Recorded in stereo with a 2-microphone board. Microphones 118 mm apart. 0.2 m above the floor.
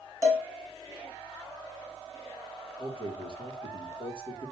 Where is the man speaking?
45° left (ahead or behind), 3.5 m.